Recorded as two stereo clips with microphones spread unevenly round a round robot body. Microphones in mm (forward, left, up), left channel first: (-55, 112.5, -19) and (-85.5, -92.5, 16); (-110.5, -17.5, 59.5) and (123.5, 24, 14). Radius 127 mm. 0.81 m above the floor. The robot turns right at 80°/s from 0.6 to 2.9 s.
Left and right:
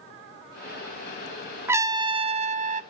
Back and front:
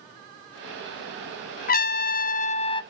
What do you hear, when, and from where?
1.7 s a trumpet: 170° left, 0.7 m; by 2.8 s 100° right, 0.7 m